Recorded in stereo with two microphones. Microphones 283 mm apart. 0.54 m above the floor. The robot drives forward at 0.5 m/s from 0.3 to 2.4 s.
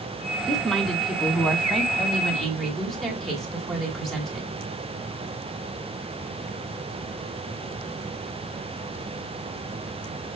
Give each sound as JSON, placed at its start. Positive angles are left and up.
{"t": 0.5, "sound": "a woman speaking", "side_deg": 0, "distance_m": 1.0}